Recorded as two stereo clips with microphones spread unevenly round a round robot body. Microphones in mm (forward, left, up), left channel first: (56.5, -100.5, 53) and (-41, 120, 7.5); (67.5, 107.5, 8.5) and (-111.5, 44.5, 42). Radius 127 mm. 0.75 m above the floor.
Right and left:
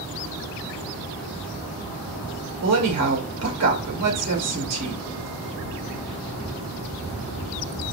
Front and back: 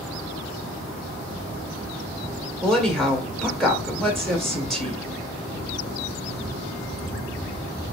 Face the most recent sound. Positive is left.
turn(degrees=105)